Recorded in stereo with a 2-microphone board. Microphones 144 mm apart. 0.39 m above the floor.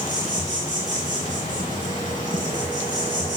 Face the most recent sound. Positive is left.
turn(degrees=70)  # may be behind; listen again after turning